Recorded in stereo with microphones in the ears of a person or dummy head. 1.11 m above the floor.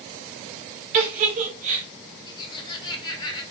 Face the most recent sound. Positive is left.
turn(degrees=25)  # may be behind; listen again after turning